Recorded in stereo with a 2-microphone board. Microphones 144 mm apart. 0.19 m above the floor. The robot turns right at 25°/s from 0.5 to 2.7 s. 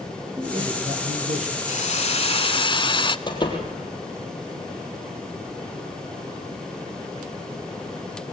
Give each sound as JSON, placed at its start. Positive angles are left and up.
{"t": 0.4, "sound": "a man speaking", "side_deg": -35, "distance_m": 5.5}
{"t": 1.7, "sound": "a hiss", "side_deg": 55, "distance_m": 0.7}
{"t": 3.3, "sound": "a door slam", "side_deg": 30, "distance_m": 4.0}